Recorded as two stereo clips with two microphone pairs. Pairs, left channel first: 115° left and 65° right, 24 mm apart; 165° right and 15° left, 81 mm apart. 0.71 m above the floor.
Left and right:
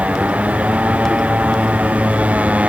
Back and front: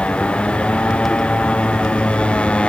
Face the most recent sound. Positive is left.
turn(degrees=-85)